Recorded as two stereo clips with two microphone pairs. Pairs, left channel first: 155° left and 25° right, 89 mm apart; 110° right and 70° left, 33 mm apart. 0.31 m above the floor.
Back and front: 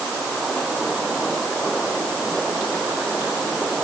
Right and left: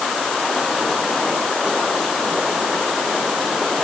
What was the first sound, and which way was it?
Only background noise.